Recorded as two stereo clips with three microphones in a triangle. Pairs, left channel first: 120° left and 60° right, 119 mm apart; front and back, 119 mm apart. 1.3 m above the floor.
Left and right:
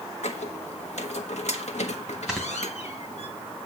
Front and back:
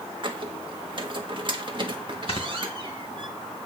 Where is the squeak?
135° left, 1.2 m.